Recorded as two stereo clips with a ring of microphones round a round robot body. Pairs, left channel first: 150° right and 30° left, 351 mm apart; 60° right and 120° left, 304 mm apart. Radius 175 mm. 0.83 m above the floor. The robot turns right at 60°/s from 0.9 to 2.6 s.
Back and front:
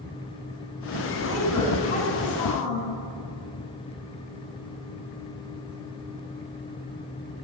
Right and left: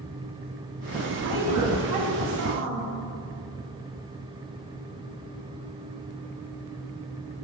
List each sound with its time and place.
1.2 s a woman speaking: 95° left, 5.5 m; by 2.9 s straight behind, 5.5 m